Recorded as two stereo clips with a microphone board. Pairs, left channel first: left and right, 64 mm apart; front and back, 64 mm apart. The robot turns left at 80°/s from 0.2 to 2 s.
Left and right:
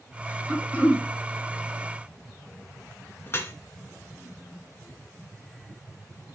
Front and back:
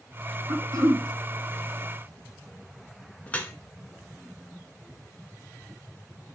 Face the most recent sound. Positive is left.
turn(degrees=60)